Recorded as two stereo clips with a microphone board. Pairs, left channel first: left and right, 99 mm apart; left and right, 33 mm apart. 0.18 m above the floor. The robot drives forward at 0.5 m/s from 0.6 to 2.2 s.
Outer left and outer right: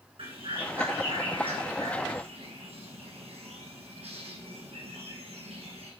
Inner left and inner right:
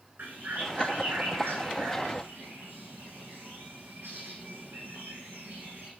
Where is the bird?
75° right (ahead or behind), 3 m; by 5.9 s 85° right, 3 m.